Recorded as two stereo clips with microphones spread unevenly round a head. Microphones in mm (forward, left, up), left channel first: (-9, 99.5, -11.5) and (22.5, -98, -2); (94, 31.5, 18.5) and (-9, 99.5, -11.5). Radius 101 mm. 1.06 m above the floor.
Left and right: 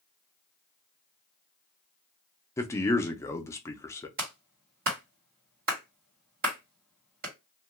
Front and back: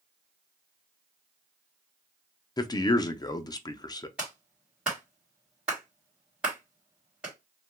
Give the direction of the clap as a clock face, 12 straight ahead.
4 o'clock.